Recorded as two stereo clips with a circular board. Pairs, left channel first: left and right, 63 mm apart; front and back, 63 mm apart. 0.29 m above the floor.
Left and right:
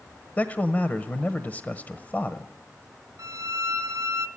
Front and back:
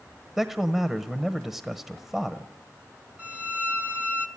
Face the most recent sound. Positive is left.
turn(degrees=-115)